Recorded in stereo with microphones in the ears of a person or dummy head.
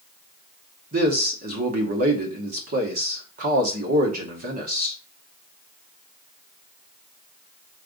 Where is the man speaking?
50° right (ahead or behind), 1.1 m.